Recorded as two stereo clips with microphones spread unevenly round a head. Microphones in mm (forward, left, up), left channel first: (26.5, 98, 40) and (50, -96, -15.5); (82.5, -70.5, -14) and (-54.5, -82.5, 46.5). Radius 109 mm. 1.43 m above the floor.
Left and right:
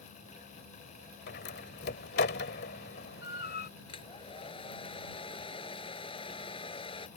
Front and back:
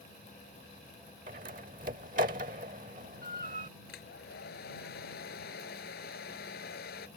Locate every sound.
1.3 s a door slam: 140° left
3.9 s a hair dryer: 35° left